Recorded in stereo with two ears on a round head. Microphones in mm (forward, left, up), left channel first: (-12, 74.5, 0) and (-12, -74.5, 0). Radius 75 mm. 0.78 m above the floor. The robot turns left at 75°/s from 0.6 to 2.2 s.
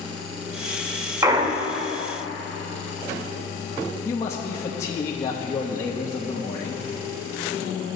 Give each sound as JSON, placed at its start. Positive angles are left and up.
{"t": 1.2, "sound": "a clunk", "azimuth_deg": -25, "distance_m": 0.5}
{"t": 4.0, "sound": "a man speaking", "side_deg": 20, "distance_m": 0.9}